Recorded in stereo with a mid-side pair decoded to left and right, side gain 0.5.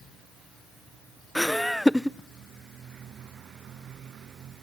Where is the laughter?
Straight ahead, 0.6 m.